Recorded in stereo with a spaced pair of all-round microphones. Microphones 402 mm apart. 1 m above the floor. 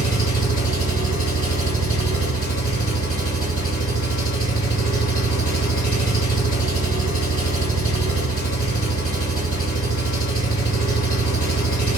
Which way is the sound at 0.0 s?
20° left (ahead or behind).